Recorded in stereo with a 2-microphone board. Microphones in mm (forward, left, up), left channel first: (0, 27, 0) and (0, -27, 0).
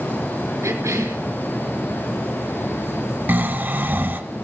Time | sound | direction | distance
0.6 | a cough | 65° right (ahead or behind) | 3.5 m
3.3 | snoring | 35° right (ahead or behind) | 1.3 m